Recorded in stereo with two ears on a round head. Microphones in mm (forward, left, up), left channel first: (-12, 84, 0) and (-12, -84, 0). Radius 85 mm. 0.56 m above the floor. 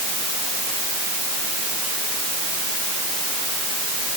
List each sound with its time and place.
Only background noise.